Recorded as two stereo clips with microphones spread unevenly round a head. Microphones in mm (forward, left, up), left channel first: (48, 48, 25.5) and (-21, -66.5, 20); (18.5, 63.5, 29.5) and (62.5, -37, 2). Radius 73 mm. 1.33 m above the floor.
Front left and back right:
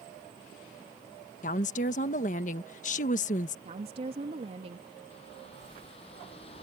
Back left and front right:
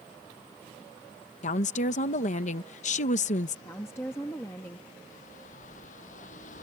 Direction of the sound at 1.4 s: 95° left.